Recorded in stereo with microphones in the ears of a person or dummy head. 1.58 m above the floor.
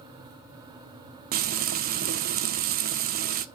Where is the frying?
45° right (ahead or behind), 0.6 m.